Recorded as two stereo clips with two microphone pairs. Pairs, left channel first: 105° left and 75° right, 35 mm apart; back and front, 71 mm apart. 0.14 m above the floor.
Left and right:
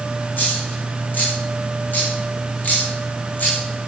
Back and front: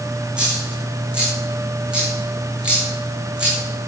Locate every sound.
0.4 s a dropped coin: 75° left, 6 m